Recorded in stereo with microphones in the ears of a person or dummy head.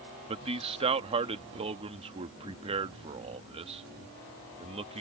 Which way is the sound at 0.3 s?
30° right (ahead or behind).